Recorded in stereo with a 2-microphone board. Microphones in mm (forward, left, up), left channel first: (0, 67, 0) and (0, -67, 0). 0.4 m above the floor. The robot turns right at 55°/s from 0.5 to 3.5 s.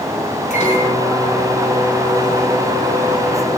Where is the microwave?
120° left, 4 m; by 3.6 s 75° right, 4 m.